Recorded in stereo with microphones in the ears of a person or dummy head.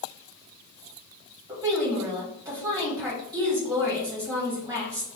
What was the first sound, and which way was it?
A woman speaking, 15° right (ahead or behind).